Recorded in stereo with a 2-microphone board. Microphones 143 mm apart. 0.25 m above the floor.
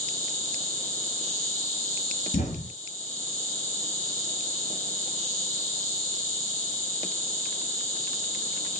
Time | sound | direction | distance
0.0 | an insect | 60° left (ahead or behind) | 1.5 m
2.3 | an explosion | 65° left (ahead or behind) | 1.4 m